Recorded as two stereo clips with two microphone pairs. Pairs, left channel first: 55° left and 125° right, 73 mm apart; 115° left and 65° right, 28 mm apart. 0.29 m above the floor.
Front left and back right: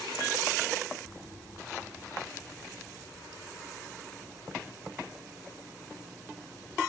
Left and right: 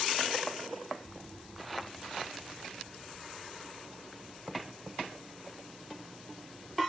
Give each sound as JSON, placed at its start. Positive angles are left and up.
{"t": 1.0, "sound": "an explosion", "azimuth_deg": -145, "distance_m": 2.5}